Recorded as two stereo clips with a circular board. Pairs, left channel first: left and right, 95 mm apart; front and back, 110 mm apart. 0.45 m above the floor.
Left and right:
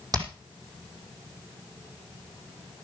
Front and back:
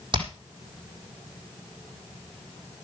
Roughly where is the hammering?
Behind right.